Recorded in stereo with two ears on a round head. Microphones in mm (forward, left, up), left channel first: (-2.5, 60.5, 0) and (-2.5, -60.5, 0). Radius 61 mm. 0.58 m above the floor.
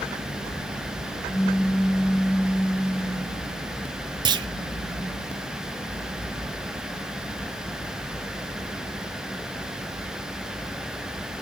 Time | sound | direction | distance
1.3 | a pop | 20° right (ahead or behind) | 1.1 m
4.2 | a clunk | 35° right (ahead or behind) | 0.7 m